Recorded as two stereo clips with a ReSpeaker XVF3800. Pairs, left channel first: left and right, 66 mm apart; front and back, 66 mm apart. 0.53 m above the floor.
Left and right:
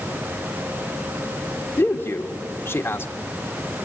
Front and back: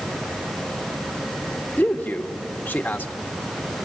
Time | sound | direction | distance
1.8 | a man speaking | 50° left | 1.3 m